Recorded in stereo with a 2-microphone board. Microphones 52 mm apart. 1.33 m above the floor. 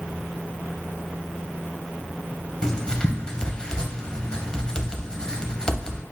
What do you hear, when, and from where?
2.6 s writing: 15° left (ahead or behind), 0.7 m